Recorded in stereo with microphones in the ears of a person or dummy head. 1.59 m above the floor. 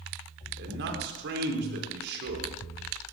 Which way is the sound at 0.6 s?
65° right (ahead or behind).